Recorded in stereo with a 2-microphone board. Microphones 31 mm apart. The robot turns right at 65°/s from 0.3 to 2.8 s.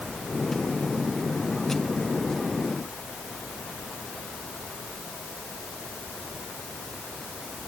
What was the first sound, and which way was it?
Only background noise.